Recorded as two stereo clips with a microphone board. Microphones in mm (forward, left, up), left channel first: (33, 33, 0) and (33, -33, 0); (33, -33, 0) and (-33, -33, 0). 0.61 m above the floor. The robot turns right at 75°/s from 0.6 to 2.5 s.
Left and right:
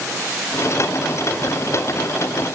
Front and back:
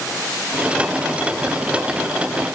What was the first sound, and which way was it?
Only background noise.